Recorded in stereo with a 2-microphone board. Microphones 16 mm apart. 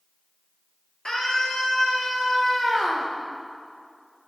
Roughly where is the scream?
Left.